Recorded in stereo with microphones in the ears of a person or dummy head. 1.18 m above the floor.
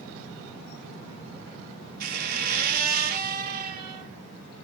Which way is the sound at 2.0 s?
60° right (ahead or behind).